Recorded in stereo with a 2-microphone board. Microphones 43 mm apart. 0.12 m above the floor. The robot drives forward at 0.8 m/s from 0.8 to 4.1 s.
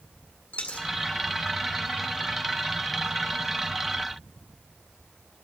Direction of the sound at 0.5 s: 35° left (ahead or behind).